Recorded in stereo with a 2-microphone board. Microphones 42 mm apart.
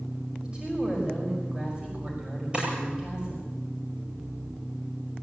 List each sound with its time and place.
0.4 s a woman speaking: 20° right (ahead or behind), 5 m
2.5 s a drawer: 25° right (ahead or behind), 8.5 m